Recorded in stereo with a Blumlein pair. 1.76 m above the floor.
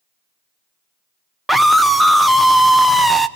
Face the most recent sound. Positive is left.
turn(degrees=-5)